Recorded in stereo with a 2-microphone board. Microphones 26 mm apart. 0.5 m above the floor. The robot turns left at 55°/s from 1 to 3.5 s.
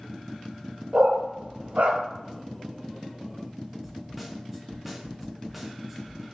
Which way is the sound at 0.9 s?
50° right (ahead or behind).